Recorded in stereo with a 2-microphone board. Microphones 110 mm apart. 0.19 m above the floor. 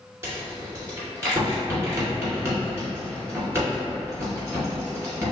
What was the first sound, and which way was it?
A rattle, 20° right (ahead or behind).